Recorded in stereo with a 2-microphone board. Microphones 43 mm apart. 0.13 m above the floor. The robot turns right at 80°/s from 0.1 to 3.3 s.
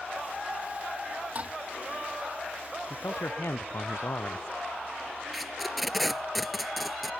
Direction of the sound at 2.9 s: 65° left.